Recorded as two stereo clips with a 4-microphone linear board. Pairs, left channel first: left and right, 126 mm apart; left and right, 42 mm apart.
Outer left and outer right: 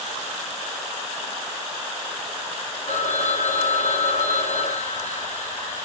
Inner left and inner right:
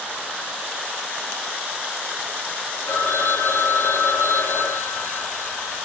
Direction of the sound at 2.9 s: 75° left (ahead or behind).